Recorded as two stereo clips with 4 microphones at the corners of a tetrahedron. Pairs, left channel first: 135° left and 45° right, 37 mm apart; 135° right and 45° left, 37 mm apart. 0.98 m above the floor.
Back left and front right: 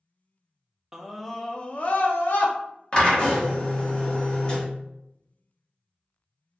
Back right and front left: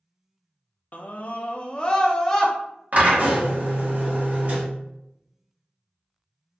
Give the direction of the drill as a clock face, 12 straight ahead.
10 o'clock.